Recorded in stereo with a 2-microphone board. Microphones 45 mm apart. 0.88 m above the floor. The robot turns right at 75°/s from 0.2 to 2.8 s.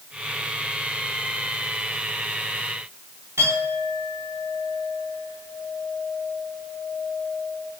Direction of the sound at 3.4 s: 85° right.